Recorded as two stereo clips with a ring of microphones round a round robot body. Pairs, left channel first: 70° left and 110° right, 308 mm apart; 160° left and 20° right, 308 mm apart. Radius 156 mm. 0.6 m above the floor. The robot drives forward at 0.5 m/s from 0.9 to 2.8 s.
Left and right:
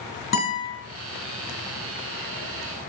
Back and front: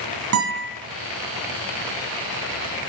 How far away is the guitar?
About 2.5 m.